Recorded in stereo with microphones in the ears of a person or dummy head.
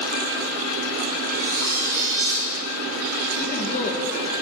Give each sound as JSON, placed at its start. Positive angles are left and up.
{"t": 1.3, "sound": "cutlery clinking", "side_deg": -15, "distance_m": 3.0}
{"t": 3.4, "sound": "a woman speaking", "side_deg": 40, "distance_m": 1.6}